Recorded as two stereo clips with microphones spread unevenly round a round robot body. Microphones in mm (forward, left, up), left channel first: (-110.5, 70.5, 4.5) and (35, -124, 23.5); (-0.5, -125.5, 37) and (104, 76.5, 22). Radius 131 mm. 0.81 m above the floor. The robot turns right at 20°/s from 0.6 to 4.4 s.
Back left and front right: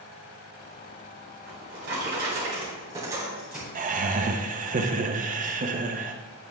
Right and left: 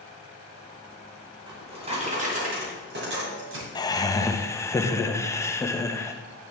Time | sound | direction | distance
1.5 | a drawer | 10° right | 2.5 m
3.8 | laughter | 60° right | 0.7 m